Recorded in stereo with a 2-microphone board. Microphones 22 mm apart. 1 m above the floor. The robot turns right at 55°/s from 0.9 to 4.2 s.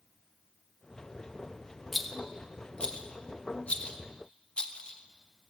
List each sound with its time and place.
1.9 s a rattle: 5° right (ahead or behind), 1.4 m; by 5.5 s 50° left (ahead or behind), 1.4 m